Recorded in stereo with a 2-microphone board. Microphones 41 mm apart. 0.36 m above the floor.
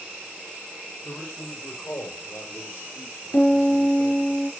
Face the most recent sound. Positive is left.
turn(degrees=80)